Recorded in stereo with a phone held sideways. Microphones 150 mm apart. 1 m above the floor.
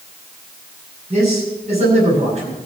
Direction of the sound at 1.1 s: 45° right (ahead or behind).